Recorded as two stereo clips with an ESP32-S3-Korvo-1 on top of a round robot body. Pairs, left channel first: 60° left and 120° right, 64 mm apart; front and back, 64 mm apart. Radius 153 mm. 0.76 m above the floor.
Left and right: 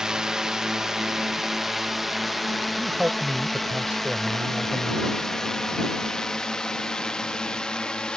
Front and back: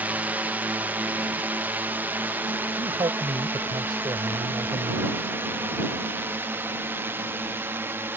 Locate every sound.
0.0 s a drone: 175° left; by 8.2 s 135° left
2.8 s a man speaking: 170° left